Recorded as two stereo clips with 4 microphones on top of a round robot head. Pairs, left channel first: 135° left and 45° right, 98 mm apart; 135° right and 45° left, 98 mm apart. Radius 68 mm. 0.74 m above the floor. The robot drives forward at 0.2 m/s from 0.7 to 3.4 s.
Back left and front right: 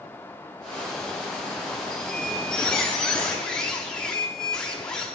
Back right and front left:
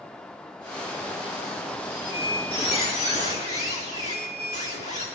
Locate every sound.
1.9 s a squeak: 140° right, 9 m